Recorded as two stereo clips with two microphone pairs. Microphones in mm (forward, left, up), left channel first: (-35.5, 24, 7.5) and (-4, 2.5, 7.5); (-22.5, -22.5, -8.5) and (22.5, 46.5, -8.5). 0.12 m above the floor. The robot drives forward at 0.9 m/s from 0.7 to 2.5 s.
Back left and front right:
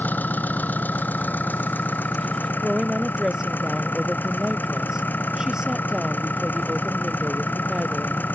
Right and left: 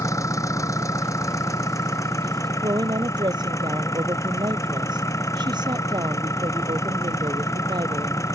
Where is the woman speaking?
40° left.